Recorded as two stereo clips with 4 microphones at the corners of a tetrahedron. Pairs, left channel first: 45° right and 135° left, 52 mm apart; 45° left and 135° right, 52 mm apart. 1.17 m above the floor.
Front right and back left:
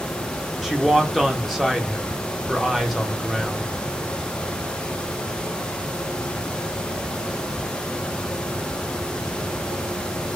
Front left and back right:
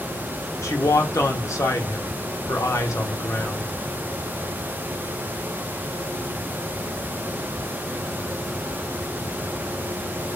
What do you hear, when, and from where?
0.6 s a man speaking: 50° left, 0.8 m